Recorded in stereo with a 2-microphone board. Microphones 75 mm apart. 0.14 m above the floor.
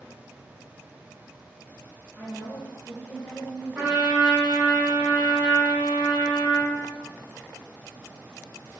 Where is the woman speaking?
20° right (ahead or behind), 1.3 m; by 4.0 s 5° left (ahead or behind), 1.7 m.